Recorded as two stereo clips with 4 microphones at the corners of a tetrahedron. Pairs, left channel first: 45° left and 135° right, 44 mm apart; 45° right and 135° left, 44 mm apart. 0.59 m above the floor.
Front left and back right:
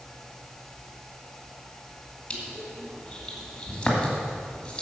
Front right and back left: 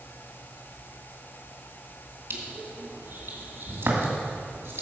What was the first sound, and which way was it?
Crushing, 115° left.